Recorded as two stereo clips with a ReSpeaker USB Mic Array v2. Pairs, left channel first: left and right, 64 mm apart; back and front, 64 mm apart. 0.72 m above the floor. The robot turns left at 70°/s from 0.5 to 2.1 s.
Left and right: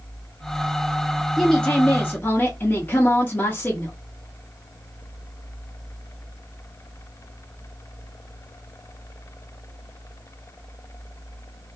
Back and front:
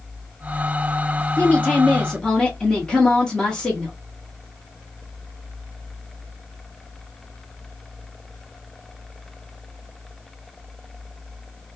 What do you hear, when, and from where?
1.4 s a woman speaking: 170° left, 0.8 m; by 4.0 s 115° left, 0.8 m